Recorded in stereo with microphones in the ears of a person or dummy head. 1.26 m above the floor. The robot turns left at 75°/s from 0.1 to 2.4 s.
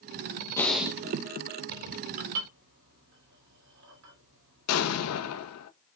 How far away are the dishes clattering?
About 2 m.